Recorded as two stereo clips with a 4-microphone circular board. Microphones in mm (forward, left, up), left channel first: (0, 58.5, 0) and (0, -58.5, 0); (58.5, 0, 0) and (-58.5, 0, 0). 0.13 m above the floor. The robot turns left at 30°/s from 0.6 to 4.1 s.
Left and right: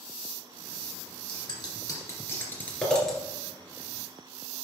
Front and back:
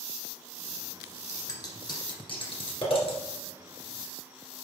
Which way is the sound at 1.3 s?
55° left.